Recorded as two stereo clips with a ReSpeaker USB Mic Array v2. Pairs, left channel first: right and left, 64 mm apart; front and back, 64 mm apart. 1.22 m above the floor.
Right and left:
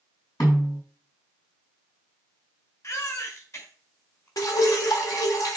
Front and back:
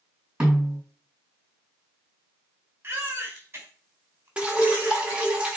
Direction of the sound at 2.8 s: 125° right.